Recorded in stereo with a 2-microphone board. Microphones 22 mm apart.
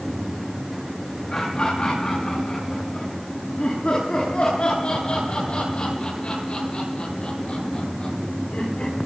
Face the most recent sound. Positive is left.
turn(degrees=65)  # may be behind; listen again after turning